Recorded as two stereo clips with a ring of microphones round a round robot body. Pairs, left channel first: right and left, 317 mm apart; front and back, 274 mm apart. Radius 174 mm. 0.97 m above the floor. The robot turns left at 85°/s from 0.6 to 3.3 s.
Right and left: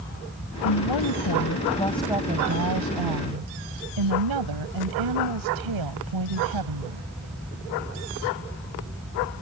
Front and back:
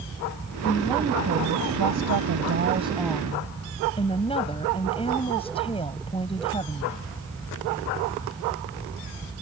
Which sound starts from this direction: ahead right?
A woman speaking, at 0.6 s.